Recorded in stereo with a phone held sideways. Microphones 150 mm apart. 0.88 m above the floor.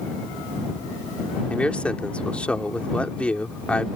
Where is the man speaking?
10° left (ahead or behind).